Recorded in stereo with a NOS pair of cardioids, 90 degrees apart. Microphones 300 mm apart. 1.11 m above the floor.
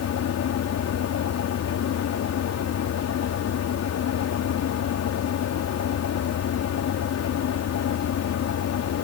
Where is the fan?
60° left.